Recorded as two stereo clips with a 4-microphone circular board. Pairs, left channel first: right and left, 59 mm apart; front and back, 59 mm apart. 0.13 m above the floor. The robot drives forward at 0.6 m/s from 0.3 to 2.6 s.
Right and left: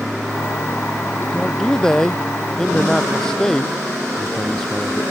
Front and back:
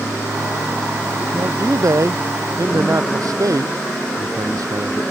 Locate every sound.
1.3 s a man speaking: 165° right; by 5.0 s 170° right